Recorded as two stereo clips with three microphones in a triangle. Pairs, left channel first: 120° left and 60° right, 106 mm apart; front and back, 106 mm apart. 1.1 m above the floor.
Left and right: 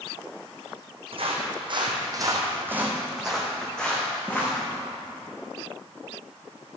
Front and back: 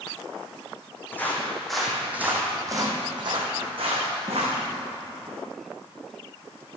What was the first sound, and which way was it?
Footsteps, 70° right.